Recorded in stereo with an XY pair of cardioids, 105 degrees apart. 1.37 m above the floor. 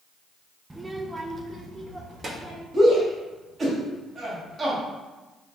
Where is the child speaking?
10° right, 0.8 m; by 2.6 s 35° right, 2.5 m.